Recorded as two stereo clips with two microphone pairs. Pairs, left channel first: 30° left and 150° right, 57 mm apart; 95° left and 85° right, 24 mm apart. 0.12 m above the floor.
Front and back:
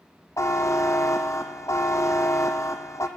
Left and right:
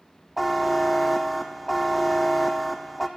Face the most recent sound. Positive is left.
turn(degrees=5)